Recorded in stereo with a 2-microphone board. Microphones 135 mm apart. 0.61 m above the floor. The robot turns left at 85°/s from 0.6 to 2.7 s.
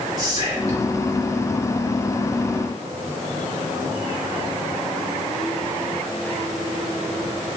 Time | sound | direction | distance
0.2 | whispering | 30° right (ahead or behind) | 1.6 m